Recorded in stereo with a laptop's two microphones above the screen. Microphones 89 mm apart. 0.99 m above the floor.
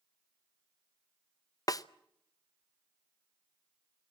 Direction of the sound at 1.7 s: 40° left (ahead or behind).